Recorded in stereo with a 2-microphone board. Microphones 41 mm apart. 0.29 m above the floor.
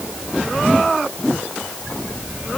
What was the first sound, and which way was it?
Only background noise.